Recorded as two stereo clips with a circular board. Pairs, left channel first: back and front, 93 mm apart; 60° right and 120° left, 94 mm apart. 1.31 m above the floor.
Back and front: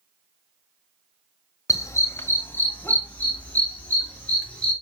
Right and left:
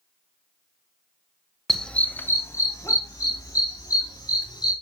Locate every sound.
1.7 s a dog barking: 145° right, 1.3 m; by 4.7 s 100° right, 5.5 m